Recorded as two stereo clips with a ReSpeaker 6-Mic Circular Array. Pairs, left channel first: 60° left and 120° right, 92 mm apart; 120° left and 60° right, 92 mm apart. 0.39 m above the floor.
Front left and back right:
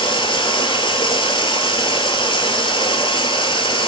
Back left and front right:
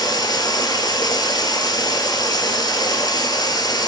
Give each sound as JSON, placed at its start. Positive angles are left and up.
{"t": 0.0, "sound": "running water", "azimuth_deg": 80, "distance_m": 0.9}